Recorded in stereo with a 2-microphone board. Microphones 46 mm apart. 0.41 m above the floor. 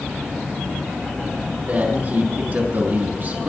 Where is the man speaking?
45° right (ahead or behind), 5 m.